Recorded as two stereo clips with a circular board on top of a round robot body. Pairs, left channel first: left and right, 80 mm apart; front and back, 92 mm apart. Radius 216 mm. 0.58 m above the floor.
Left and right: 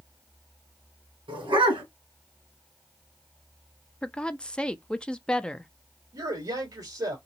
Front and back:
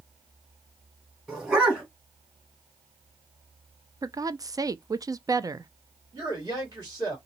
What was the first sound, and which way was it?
A dog barking, 95° right.